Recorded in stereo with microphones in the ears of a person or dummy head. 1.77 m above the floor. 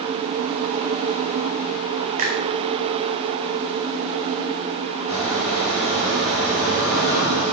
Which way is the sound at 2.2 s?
40° right (ahead or behind).